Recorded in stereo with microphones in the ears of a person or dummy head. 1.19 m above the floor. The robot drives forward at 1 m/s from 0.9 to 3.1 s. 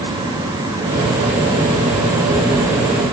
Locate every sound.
Only background noise.